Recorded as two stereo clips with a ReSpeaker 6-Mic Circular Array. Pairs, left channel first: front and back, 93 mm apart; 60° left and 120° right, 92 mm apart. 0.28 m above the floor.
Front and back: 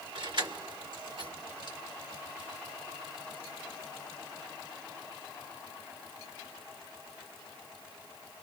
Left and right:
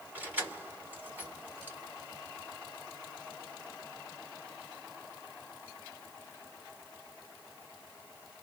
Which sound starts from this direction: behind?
Keys jangling, at 0.1 s.